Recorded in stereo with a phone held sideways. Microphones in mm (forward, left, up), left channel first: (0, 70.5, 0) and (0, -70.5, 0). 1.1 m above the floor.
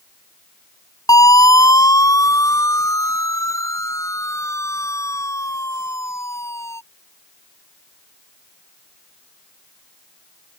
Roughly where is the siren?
Left.